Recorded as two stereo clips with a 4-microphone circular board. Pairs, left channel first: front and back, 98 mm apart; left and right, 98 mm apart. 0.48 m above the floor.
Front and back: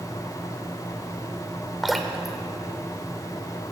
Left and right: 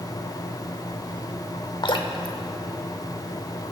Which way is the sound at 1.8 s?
90° left.